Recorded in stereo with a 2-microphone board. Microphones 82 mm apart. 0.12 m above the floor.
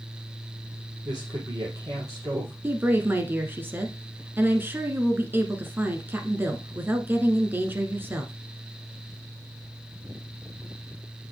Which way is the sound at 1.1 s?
45° right (ahead or behind).